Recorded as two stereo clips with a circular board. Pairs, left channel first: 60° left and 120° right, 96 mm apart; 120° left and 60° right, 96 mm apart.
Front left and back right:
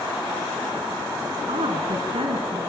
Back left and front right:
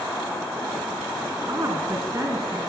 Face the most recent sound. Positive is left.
turn(degrees=-115)